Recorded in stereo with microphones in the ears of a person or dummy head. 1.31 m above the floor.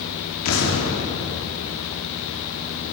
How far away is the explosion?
About 2.5 m.